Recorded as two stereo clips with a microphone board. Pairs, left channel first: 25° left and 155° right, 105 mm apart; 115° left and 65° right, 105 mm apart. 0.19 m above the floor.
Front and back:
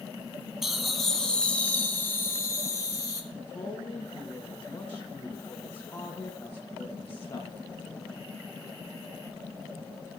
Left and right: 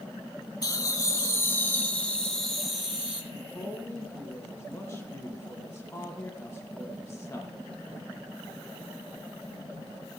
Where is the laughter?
120° left, 1.4 m; by 3.2 s 5° left, 1.5 m.